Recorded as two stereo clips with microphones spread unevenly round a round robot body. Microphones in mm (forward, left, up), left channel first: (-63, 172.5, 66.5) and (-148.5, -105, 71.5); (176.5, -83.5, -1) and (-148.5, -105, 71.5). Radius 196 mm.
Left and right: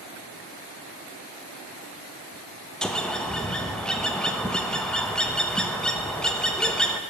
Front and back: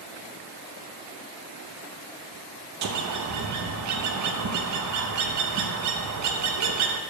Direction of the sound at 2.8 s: 160° left.